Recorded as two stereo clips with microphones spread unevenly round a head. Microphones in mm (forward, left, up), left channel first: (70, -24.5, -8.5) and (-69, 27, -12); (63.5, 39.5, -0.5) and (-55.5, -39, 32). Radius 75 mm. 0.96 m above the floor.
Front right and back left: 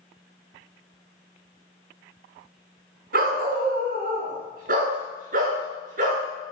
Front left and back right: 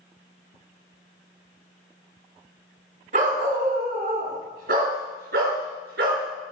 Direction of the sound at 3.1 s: Straight behind.